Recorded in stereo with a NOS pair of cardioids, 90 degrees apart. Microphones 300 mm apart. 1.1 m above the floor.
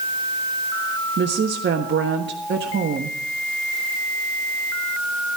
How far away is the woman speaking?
About 1.5 m.